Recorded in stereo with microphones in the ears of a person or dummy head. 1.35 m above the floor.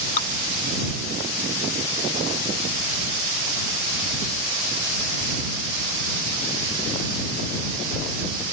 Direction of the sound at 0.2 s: 50° left (ahead or behind).